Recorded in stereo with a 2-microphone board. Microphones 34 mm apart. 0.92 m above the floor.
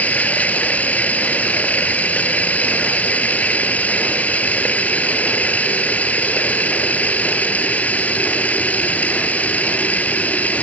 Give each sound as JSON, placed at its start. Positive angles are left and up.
{"t": 0.0, "sound": "running water", "side_deg": 45}